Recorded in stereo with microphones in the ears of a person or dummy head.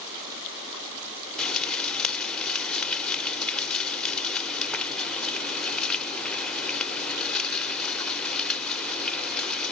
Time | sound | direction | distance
1.4 | frying | 5° left (ahead or behind) | 1.0 m